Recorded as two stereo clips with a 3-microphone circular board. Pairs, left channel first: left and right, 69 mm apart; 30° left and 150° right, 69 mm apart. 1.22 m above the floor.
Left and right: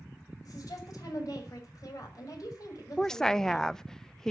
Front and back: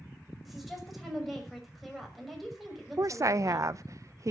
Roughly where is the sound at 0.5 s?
Behind left.